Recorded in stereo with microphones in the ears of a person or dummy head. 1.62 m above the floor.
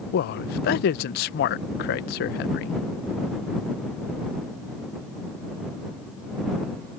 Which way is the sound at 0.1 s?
50° left (ahead or behind).